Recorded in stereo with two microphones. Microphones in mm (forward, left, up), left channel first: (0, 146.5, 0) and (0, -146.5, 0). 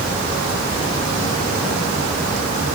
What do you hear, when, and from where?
Only background noise.